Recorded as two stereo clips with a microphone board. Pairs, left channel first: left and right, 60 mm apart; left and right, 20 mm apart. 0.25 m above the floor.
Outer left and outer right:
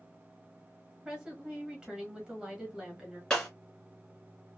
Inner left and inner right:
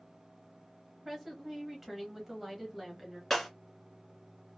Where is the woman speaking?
15° right (ahead or behind), 1.1 m.